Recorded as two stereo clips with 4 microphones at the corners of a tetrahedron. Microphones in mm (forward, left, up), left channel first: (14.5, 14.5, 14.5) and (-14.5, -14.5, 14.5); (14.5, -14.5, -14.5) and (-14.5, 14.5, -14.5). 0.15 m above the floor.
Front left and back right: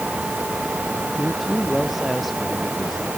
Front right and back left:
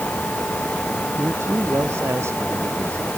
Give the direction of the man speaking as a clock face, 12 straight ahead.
7 o'clock.